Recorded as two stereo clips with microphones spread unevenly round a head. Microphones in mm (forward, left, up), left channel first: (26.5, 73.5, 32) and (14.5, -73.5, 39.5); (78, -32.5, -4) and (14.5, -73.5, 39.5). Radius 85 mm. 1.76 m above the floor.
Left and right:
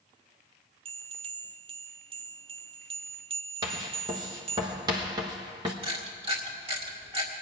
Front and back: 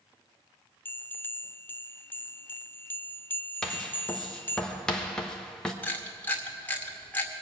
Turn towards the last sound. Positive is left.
turn(degrees=-45)